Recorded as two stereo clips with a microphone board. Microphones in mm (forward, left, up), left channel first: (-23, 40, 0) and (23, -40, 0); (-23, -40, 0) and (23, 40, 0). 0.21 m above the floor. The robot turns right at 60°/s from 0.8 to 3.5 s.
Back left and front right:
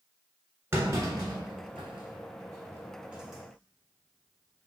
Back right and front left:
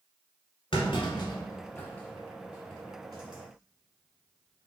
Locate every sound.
0.7 s a clunk: 125° right, 1.3 m; by 4.7 s 40° left, 1.3 m